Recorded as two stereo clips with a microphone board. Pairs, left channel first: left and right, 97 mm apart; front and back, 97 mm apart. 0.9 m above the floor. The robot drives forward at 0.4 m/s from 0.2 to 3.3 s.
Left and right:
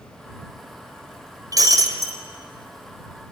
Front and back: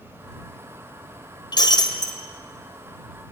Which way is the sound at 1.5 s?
40° right.